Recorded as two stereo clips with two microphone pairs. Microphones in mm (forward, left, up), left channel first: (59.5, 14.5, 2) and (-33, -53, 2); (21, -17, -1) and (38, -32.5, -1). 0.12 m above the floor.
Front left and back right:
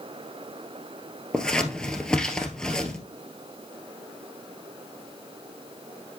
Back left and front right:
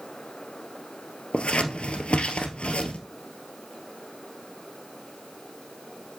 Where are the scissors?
120° left, 1.4 m.